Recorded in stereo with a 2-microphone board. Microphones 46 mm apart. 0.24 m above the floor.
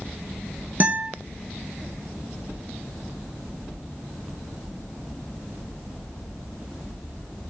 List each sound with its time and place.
0.8 s a guitar: 40° right (ahead or behind), 0.6 m